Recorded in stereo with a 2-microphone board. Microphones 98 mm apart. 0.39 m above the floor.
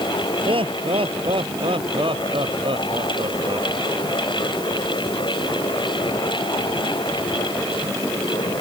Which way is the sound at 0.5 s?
65° right (ahead or behind).